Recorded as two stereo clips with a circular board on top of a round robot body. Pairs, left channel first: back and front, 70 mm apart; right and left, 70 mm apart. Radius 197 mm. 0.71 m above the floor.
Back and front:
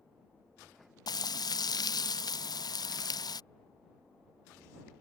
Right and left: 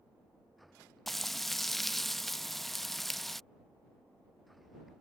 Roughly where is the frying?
Behind.